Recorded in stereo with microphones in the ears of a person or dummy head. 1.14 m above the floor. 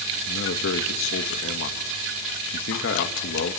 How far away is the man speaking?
About 1.6 m.